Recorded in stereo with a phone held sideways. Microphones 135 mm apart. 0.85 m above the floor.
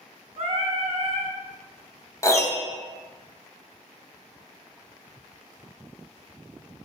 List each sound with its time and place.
0.4 s singing: 50° right (ahead or behind), 0.6 m
2.2 s a piano: 20° left (ahead or behind), 0.5 m